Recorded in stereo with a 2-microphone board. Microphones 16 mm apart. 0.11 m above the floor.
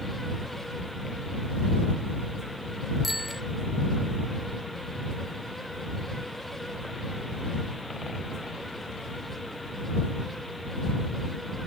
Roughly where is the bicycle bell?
Centre.